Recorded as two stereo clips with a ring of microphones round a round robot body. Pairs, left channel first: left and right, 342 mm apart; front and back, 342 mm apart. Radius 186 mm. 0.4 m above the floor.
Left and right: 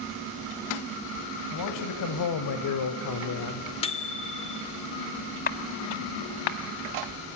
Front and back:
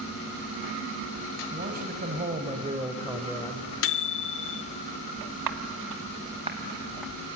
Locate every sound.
1.5 s a man speaking: 115° left, 2 m; by 3.7 s 65° left, 0.9 m
3.8 s a microwave: 25° left, 0.8 m
5.5 s footsteps: 155° left, 0.6 m; by 7.1 s 90° left, 1.0 m